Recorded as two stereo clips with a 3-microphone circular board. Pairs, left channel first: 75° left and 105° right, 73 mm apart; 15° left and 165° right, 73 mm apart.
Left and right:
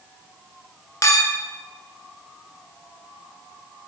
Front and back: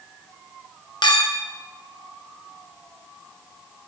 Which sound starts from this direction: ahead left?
A clink, at 1.0 s.